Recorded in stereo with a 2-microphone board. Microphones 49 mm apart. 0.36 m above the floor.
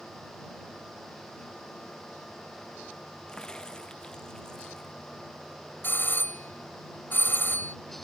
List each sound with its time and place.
3.3 s a crack: 15° left (ahead or behind)
5.8 s a doorbell: 45° left (ahead or behind)